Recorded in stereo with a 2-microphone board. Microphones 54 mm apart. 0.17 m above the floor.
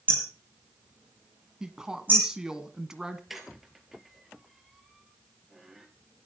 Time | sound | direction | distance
0.1 | hammering | 30° right (ahead or behind) | 5 m
1.6 | a woman speaking | 10° right (ahead or behind) | 1.7 m
3.3 | a squeak | 5° right (ahead or behind) | 2.5 m